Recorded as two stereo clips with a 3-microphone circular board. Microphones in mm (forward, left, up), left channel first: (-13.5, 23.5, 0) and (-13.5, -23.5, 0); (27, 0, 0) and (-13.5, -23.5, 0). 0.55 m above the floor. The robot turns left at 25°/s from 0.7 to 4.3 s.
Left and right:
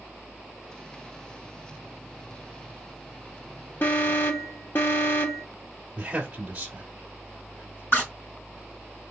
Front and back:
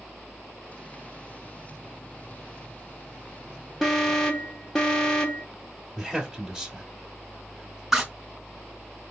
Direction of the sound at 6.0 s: 80° right.